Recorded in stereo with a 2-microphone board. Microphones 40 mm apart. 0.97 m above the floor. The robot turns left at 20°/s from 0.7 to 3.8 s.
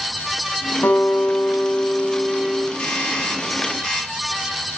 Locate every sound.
0.8 s a guitar: 95° left, 6 m; by 2.7 s 55° left, 6 m
2.8 s a doorbell: 30° left (ahead or behind), 8.5 m; by 4.1 s 10° left (ahead or behind), 8.5 m